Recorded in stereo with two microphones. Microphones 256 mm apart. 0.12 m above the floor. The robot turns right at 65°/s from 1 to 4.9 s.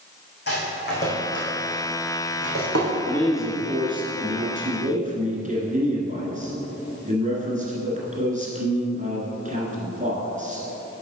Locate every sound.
0.5 s a rattle: 40° left (ahead or behind), 2.5 m; by 3.0 s 80° right, 2.5 m
3.0 s a man speaking: 160° left, 1.6 m; by 10.7 s 80° right, 1.6 m